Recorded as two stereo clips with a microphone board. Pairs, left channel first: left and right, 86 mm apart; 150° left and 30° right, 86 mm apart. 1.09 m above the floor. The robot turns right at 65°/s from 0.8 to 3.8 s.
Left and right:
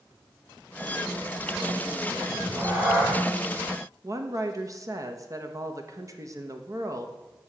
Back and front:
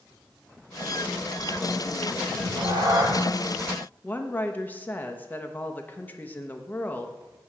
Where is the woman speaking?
140° right, 0.7 m.